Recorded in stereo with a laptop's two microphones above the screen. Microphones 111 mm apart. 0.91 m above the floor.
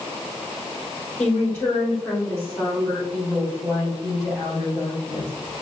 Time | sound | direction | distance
1.2 | a woman speaking | 15° left (ahead or behind) | 4 m